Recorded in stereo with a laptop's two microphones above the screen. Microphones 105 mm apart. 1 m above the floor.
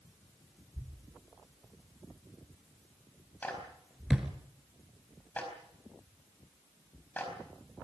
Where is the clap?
15° left (ahead or behind), 4.5 m.